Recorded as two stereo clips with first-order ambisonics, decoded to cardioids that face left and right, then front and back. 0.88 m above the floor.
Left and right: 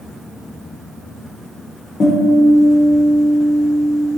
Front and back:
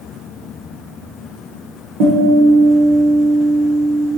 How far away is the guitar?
About 1.5 m.